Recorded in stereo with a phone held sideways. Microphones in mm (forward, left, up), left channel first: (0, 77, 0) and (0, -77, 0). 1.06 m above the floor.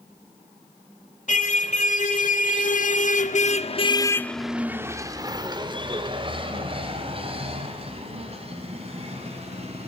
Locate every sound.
1.3 s a car horn: 55° left (ahead or behind), 2.5 m; by 9.9 s 45° right (ahead or behind), 4.5 m